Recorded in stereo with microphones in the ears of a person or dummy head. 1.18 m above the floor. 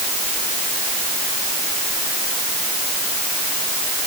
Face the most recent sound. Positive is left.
No sound to turn to.